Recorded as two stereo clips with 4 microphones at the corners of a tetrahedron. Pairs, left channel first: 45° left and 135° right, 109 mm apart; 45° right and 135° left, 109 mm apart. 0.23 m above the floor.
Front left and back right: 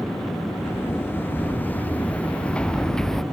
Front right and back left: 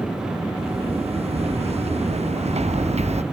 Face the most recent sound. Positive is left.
turn(degrees=130)